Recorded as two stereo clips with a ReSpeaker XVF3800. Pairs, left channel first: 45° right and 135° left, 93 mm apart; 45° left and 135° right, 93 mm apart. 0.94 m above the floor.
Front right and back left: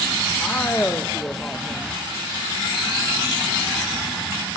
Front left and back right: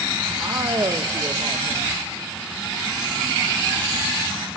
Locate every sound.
0.4 s a man speaking: 105° right, 0.7 m